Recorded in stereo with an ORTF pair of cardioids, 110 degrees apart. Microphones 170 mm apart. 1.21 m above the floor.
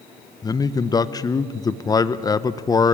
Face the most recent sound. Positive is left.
turn(degrees=20)